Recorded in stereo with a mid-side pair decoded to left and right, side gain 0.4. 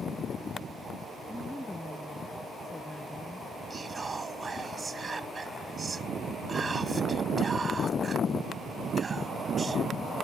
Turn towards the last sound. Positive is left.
turn(degrees=-35)